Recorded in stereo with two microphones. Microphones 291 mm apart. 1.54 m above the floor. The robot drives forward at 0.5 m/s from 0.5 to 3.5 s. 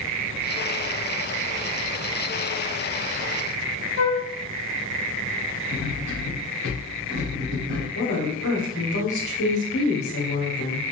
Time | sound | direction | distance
4.0 | a flute | 60° left (ahead or behind) | 0.5 m
5.7 | cutlery clinking | 60° right (ahead or behind) | 2 m
8.0 | a woman speaking | 70° left (ahead or behind) | 1.3 m